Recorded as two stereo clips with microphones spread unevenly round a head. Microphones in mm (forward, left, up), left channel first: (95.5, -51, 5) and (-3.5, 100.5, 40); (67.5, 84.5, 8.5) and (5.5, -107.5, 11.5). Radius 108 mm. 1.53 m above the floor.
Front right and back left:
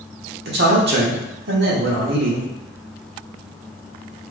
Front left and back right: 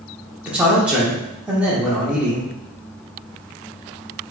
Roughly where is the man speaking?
Behind.